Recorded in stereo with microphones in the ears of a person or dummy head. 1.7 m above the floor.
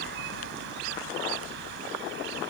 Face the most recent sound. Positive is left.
turn(degrees=-70)  # may be behind; listen again after turning